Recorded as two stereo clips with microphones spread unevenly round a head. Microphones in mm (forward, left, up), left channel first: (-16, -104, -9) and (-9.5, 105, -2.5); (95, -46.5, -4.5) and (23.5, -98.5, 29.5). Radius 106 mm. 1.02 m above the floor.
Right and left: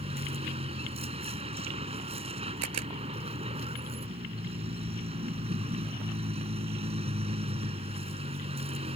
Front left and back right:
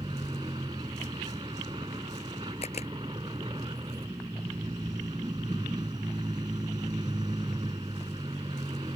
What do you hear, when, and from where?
0.0 s a vehicle: 150° left
2.6 s a camera shutter: 85° left